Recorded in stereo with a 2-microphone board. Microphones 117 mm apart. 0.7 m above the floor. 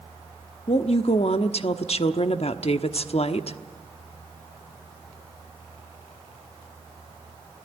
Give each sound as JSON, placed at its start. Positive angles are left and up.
{"t": 0.7, "sound": "a woman speaking", "side_deg": 60, "distance_m": 1.0}